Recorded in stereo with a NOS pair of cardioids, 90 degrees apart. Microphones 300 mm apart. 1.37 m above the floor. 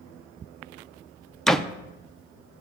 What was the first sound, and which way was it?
A door slam, straight ahead.